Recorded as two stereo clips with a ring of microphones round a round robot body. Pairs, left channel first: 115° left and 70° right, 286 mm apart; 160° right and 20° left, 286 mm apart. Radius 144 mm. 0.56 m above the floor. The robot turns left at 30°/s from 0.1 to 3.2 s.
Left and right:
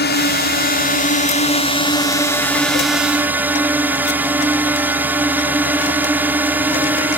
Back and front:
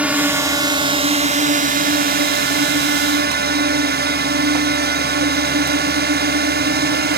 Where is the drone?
105° left; by 7.2 s 10° left.